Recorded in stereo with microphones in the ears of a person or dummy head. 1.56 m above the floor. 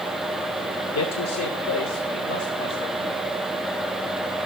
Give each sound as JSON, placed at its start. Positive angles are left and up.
{"t": 0.9, "sound": "a man speaking", "side_deg": 75, "distance_m": 0.6}